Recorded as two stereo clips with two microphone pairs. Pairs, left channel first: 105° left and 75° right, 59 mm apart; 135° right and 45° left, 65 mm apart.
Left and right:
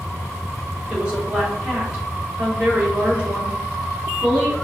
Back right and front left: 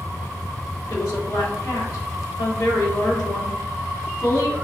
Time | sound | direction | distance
0.9 | a woman speaking | 145° right | 2 m